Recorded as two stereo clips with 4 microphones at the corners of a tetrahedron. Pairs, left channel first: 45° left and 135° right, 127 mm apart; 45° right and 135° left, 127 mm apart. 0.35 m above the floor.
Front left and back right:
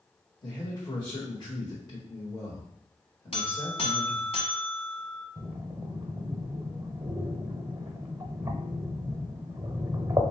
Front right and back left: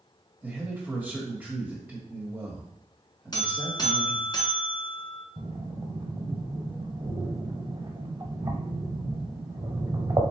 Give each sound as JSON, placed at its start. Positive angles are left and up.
{"t": 0.4, "sound": "a man speaking", "azimuth_deg": 70, "distance_m": 1.7}
{"t": 3.3, "sound": "a buzzer", "azimuth_deg": 10, "distance_m": 1.3}
{"t": 5.4, "sound": "breathing", "azimuth_deg": 165, "distance_m": 1.0}